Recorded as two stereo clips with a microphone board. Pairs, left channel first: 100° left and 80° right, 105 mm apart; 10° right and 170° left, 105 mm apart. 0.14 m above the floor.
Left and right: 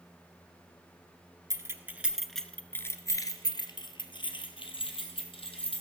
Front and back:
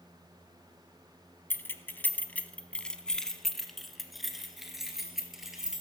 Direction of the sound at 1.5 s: 65° right.